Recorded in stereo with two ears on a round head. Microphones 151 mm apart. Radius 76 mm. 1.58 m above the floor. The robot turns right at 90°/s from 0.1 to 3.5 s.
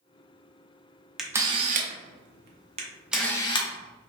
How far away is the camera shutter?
About 0.6 m.